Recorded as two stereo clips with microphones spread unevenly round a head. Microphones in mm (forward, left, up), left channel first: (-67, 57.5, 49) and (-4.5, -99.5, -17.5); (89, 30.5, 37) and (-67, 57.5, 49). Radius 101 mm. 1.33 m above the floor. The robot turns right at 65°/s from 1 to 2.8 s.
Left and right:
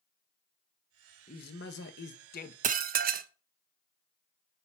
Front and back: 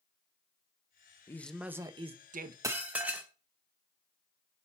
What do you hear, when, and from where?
1.3 s a man speaking: 65° left, 1.0 m; by 2.5 s 145° left, 1.0 m
2.6 s dishes clattering: 125° right, 0.6 m; by 3.3 s 115° right, 0.6 m